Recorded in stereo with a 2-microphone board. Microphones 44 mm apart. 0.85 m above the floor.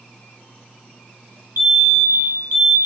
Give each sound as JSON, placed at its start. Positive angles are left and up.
{"t": 1.6, "sound": "a fire alarm", "side_deg": -65, "distance_m": 4.0}